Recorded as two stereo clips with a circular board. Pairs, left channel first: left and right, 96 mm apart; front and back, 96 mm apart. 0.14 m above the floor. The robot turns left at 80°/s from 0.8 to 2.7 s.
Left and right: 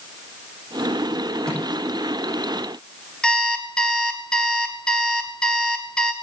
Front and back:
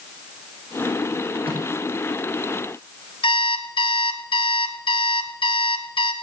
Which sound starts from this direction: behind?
A microwave, at 1.4 s.